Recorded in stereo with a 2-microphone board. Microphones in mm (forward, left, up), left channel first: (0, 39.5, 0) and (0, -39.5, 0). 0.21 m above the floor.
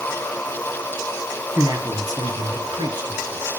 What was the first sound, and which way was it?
A man speaking, 40° right (ahead or behind).